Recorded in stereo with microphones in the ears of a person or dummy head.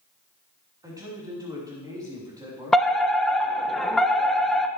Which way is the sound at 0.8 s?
20° right (ahead or behind).